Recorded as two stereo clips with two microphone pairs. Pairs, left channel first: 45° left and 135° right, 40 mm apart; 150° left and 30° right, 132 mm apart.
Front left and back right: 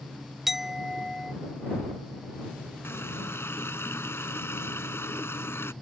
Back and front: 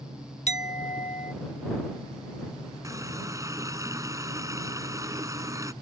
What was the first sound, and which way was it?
A clink, 145° left.